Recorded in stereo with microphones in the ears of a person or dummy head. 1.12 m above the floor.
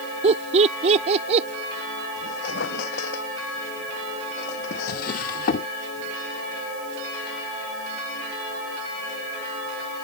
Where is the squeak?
60° left (ahead or behind).